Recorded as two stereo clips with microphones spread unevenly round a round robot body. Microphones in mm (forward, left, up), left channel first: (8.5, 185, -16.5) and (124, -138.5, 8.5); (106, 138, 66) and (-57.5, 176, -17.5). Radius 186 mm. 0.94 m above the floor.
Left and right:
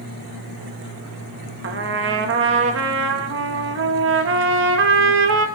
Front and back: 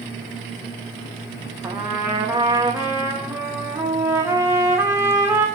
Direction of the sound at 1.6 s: 130° right.